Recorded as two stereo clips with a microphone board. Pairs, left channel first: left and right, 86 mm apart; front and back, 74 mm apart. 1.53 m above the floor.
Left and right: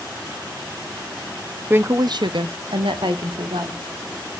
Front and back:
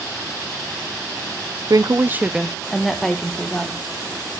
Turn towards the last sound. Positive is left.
turn(degrees=-75)